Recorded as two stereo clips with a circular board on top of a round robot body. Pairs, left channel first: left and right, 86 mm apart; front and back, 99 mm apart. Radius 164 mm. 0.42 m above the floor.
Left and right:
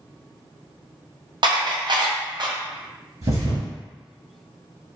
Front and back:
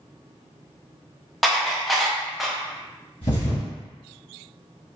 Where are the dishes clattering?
90° right, 0.6 m.